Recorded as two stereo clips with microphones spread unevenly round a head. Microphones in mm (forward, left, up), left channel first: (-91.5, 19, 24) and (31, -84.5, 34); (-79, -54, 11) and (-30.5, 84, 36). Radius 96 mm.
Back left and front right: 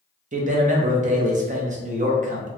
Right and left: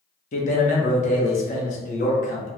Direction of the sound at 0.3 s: 80° right.